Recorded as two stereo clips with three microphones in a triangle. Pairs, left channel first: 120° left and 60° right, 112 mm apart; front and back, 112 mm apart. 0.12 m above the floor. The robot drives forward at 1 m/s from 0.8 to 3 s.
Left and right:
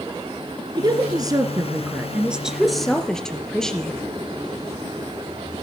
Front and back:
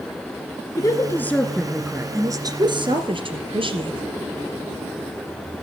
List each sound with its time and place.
0.8 s a woman speaking: 40° right, 1.5 m; by 4.1 s 155° right, 1.9 m